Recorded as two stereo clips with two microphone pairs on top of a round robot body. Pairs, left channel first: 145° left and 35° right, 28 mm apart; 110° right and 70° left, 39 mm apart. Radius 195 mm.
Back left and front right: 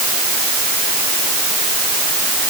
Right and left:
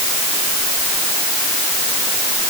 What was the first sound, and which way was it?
Only background noise.